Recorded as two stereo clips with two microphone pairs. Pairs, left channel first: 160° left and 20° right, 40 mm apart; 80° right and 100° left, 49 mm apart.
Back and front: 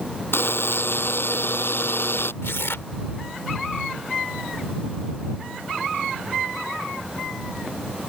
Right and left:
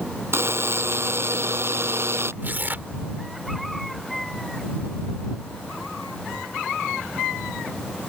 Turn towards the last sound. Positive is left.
turn(degrees=145)